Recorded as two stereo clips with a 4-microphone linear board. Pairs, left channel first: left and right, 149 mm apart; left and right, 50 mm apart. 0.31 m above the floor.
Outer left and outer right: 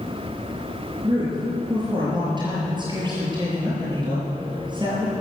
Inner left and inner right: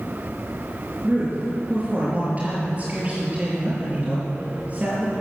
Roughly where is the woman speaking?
Right.